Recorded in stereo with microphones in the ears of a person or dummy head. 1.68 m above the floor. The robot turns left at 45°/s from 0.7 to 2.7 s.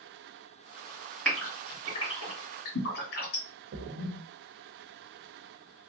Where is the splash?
75° right (ahead or behind), 0.6 m.